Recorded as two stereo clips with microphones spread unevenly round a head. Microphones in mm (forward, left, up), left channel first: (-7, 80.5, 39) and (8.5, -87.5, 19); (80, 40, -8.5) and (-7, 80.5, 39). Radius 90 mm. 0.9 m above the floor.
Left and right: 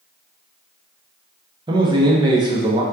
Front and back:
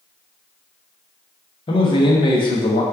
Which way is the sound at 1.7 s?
25° right.